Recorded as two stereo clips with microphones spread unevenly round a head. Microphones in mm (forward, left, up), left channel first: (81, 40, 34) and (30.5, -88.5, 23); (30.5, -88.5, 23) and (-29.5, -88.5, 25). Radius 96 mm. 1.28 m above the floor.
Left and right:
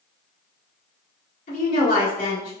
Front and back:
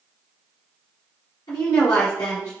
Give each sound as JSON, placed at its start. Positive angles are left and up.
{"t": 1.5, "sound": "a woman speaking", "azimuth_deg": 50, "distance_m": 1.5}